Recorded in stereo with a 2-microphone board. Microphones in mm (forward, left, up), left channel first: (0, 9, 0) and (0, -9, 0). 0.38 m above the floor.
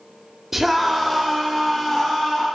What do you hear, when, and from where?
0.5 s a scream: 20° right (ahead or behind), 1.1 m; by 2.5 s 25° left (ahead or behind), 2.5 m